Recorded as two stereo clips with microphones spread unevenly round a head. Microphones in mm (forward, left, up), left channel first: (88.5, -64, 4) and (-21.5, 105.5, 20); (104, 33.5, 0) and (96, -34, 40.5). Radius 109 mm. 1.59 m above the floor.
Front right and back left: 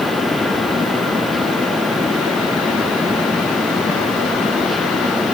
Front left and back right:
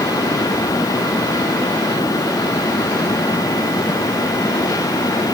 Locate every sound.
Only background noise.